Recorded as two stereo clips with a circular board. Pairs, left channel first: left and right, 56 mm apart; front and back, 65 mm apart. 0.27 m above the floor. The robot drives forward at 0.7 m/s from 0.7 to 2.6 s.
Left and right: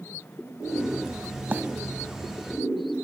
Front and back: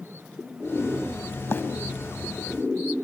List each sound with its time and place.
1.5 s a bird: 40° right, 0.7 m; by 1.6 s 45° right, 0.6 m